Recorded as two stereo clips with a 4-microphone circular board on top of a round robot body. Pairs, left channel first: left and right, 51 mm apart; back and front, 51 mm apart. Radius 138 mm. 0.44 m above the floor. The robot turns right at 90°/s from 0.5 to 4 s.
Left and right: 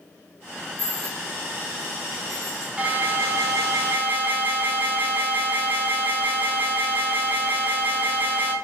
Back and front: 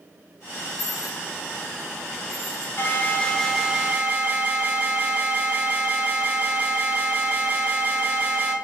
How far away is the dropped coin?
About 0.5 m.